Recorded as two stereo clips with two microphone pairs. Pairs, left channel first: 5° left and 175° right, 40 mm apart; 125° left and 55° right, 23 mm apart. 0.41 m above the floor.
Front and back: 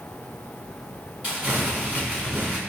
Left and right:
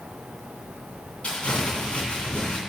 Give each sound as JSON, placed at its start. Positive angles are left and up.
{"t": 1.2, "sound": "crumpling", "azimuth_deg": 145, "distance_m": 2.5}